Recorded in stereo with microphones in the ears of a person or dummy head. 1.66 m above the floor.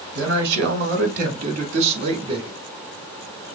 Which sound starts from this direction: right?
A man speaking, at 0.1 s.